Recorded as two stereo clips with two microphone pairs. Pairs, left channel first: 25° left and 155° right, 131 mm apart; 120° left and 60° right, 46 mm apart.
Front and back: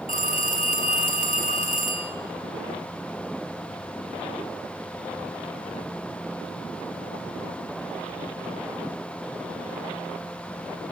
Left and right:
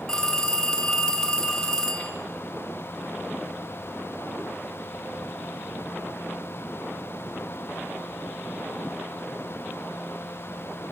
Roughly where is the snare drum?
I don't hear a snare drum.